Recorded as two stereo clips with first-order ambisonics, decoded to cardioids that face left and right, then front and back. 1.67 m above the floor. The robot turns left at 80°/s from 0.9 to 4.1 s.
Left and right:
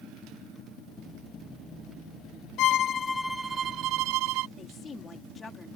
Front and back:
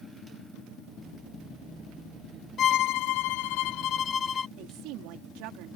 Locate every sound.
2.6 s a violin: 55° left; by 4.5 s 65° right
4.6 s a woman speaking: 160° left